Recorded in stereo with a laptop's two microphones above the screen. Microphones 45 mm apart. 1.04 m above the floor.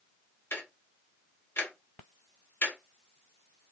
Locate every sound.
0.5 s ticking: 60° left (ahead or behind), 1.2 m